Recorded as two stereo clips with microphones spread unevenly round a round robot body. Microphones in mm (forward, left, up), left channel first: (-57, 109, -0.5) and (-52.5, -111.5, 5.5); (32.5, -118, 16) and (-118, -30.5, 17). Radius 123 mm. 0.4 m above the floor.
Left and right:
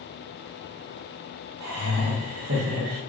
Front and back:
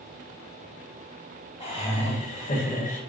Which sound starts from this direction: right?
Laughter, at 1.6 s.